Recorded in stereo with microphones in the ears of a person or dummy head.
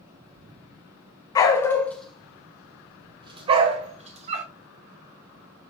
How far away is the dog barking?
About 1.1 m.